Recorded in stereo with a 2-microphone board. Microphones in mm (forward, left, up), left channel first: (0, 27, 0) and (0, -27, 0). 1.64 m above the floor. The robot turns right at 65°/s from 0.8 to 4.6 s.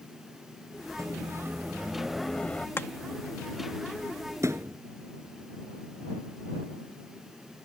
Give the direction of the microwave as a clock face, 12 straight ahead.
3 o'clock.